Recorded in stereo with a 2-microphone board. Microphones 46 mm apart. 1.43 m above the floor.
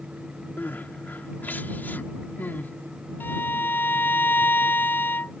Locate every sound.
0.6 s crying: 45° left (ahead or behind)
3.2 s a violin: 45° left (ahead or behind)